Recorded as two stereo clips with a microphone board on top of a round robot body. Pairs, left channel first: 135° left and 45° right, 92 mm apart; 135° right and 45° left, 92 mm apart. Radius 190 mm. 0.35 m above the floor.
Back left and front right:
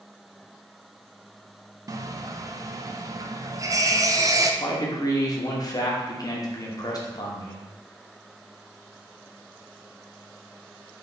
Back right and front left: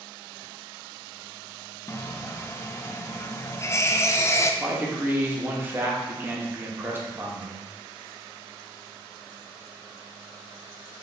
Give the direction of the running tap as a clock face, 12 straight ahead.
3 o'clock.